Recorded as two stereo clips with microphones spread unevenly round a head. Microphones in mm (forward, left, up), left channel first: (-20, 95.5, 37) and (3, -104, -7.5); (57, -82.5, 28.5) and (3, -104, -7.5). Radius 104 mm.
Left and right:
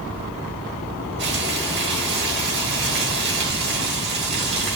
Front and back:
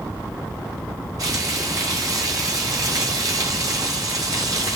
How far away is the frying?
About 2.5 m.